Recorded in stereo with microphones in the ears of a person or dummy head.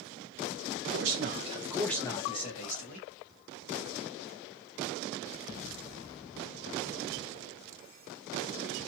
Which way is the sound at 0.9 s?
65° right (ahead or behind).